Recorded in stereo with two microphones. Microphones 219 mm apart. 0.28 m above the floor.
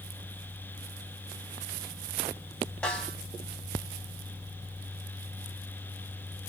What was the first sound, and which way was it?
A snare drum, 5° left (ahead or behind).